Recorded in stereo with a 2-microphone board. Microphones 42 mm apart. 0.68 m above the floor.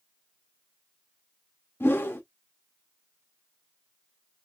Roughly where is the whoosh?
Left.